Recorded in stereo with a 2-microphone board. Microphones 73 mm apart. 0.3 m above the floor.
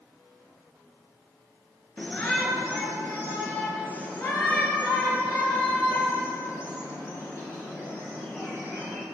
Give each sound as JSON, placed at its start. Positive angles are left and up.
{"t": 2.0, "sound": "a shout", "side_deg": 15, "distance_m": 4.5}